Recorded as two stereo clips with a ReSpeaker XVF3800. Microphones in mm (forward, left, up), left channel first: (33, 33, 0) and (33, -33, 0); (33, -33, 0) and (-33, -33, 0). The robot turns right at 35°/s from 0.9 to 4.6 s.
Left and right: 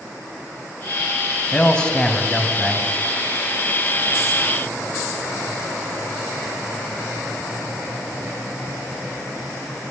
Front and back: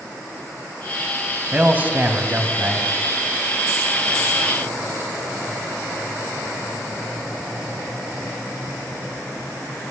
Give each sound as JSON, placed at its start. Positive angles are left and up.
{"t": 1.5, "sound": "a man speaking", "azimuth_deg": 140, "distance_m": 1.0}